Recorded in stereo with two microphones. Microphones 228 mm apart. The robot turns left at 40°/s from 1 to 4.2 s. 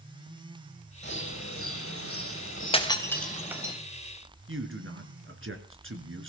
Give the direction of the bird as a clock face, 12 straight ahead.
8 o'clock.